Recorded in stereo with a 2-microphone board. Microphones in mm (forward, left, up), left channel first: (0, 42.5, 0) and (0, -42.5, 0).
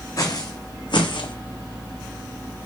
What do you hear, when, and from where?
0.2 s footsteps: 45° left (ahead or behind), 0.8 m; by 1.4 s 85° left, 0.6 m